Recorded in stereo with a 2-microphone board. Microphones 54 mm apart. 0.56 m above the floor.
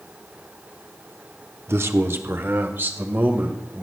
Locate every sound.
1.7 s a man speaking: 45° right (ahead or behind), 0.9 m; by 3.8 s 35° right (ahead or behind), 2.5 m